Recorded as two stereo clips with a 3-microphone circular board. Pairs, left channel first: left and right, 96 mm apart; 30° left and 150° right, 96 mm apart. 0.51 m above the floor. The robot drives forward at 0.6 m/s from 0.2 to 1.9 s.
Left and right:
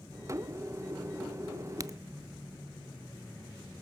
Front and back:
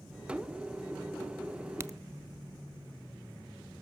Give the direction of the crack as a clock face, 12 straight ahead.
4 o'clock.